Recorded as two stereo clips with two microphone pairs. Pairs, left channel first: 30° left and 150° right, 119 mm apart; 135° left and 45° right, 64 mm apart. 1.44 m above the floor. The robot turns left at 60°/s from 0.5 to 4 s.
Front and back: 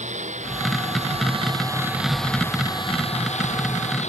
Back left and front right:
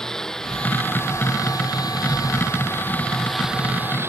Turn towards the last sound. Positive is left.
turn(degrees=10)